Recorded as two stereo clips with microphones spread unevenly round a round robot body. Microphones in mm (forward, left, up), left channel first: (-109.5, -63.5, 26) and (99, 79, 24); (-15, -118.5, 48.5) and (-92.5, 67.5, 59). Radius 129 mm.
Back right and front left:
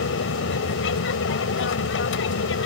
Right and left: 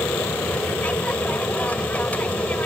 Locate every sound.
0.0 s an aircraft: 145° right